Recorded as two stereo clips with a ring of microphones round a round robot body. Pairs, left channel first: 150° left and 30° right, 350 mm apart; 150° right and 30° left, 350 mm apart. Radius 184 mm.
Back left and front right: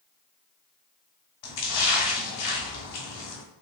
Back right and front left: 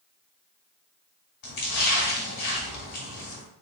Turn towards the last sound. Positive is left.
turn(degrees=165)